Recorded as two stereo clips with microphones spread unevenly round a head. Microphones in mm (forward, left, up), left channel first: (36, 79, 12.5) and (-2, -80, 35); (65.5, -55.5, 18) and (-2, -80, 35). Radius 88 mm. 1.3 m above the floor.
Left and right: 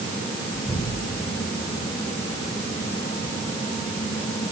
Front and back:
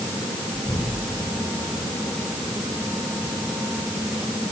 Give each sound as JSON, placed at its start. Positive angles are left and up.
{"t": 0.5, "sound": "an explosion", "azimuth_deg": -25, "distance_m": 5.0}